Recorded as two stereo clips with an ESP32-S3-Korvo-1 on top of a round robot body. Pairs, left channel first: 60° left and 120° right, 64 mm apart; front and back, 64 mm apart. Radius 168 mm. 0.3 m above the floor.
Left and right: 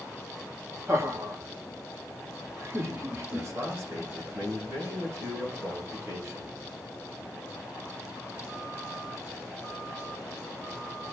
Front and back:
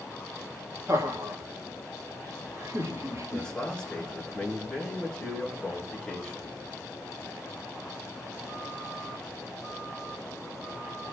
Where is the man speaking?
80° right, 8 m.